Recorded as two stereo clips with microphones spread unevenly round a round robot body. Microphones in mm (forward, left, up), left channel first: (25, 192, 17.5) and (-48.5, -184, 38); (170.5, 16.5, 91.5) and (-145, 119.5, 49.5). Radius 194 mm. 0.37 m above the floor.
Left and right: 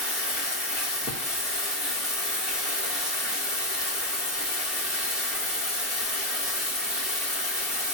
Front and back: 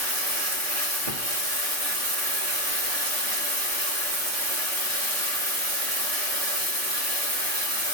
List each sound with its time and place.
0.0 s running water: 170° left, 2 m